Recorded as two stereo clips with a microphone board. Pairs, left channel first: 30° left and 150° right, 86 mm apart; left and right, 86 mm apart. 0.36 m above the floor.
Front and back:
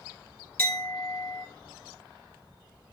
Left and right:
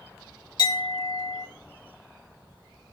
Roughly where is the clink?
Left.